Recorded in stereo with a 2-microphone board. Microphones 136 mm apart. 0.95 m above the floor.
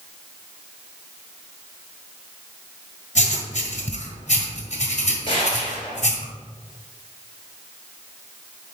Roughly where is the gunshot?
Left.